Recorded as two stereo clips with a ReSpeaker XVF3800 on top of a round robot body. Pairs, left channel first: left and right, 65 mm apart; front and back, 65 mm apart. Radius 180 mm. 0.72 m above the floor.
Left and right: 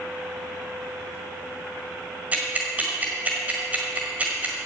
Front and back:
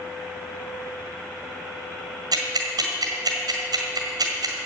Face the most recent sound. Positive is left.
turn(degrees=-160)